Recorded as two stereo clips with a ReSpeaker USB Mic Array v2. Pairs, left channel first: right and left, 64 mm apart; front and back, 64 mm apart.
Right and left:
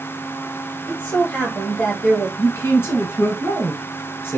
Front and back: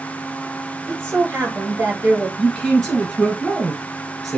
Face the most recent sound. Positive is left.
turn(degrees=-85)